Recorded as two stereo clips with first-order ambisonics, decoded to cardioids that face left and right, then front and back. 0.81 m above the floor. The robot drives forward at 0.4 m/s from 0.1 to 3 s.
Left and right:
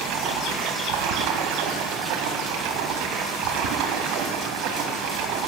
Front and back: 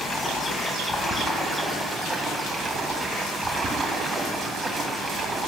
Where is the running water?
70° right, 2 m; by 5.5 s 105° right, 2 m.